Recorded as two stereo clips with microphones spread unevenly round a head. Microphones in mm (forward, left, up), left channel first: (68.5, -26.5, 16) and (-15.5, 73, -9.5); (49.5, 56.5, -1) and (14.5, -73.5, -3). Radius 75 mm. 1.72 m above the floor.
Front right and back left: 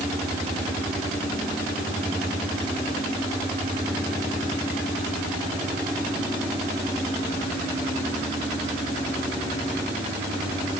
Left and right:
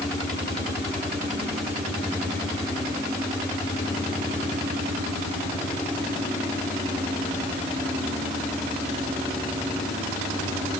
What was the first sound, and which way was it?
Only background noise.